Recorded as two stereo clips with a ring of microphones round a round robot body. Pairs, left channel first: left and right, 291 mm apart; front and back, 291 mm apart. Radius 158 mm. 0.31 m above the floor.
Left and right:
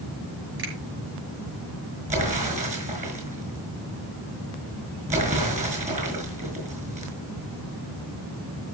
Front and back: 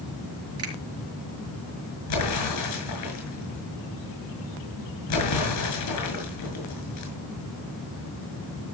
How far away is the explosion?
About 6 m.